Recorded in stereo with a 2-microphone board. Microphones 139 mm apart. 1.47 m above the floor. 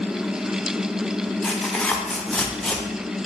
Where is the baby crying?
I don't hear a baby crying.